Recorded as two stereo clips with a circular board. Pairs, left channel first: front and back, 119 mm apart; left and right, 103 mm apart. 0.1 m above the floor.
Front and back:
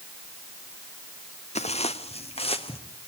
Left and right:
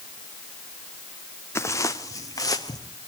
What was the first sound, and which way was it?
Footsteps, 25° left.